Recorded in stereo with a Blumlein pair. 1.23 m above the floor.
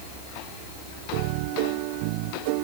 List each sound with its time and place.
Only background noise.